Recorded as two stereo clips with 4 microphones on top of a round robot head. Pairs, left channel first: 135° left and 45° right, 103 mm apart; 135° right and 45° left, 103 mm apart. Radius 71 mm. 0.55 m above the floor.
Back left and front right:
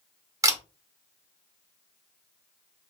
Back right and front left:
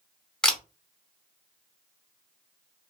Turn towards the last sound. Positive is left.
turn(degrees=-60)